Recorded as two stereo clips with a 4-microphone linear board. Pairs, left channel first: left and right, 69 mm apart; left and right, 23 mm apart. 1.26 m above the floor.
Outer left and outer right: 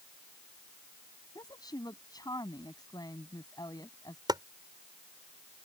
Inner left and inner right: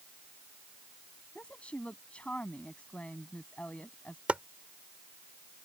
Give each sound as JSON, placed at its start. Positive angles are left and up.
{"t": 1.4, "sound": "a woman speaking", "side_deg": 70}
{"t": 4.3, "sound": "chopping", "side_deg": -85}